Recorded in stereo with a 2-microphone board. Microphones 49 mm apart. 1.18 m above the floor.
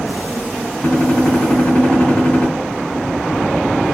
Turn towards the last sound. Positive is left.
turn(degrees=30)  # may be behind; listen again after turning